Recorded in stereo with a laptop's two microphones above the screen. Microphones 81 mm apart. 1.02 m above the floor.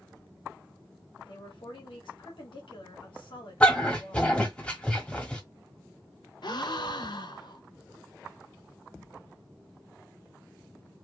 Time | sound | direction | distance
1.2 | a woman speaking | 80° left | 1.8 m
3.6 | a dog barking | 15° left (ahead or behind) | 1.4 m
6.4 | a gasp | 60° left (ahead or behind) | 0.7 m